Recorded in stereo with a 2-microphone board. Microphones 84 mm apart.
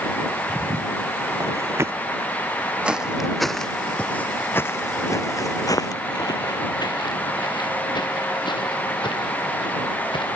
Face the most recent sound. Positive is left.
turn(degrees=75)  # may be behind; listen again after turning